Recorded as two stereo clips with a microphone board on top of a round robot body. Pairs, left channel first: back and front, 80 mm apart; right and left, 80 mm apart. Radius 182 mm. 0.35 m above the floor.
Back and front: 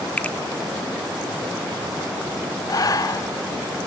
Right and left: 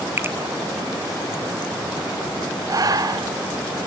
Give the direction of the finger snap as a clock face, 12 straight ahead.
8 o'clock.